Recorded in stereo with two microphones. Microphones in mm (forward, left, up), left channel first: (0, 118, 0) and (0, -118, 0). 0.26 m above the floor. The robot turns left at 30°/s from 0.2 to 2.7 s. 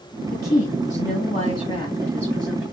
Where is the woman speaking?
65° left, 1.5 m; by 2.6 s 5° right, 1.5 m.